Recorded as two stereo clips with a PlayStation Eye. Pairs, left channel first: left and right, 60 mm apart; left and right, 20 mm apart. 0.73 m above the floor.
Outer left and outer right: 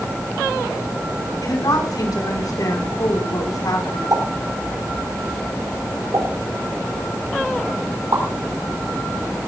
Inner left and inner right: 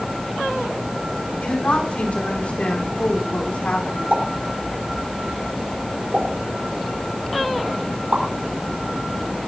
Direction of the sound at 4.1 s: 70° right (ahead or behind).